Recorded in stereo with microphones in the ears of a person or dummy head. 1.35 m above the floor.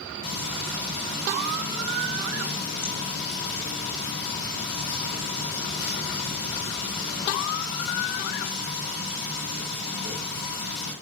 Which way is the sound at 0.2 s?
30° left (ahead or behind).